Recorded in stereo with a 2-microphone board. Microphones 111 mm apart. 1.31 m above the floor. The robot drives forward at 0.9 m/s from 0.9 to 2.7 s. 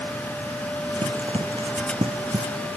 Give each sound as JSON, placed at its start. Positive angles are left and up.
{"t": 1.0, "sound": "running footsteps", "side_deg": -60}